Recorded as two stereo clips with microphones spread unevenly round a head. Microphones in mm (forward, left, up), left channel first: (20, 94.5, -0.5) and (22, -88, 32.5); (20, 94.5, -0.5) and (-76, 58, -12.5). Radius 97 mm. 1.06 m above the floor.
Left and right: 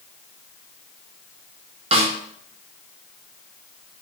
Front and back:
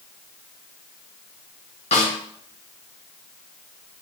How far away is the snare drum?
About 1.1 m.